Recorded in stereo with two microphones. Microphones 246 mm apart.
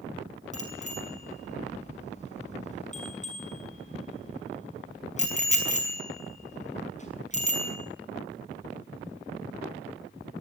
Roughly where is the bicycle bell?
Left.